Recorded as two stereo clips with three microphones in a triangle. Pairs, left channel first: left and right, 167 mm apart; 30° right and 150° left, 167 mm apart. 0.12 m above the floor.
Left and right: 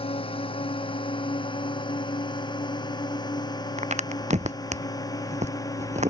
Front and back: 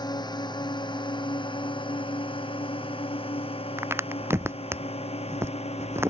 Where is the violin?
No violin in this recording.